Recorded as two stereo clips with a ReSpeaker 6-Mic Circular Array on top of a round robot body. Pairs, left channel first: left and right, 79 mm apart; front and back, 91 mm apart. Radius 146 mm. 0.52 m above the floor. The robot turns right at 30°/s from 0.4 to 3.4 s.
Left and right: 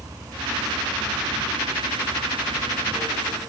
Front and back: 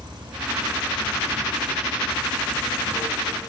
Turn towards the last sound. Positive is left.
turn(degrees=-50)